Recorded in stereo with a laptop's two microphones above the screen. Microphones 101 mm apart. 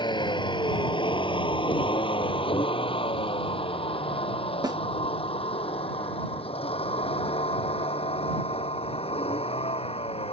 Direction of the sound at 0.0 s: 45° left (ahead or behind).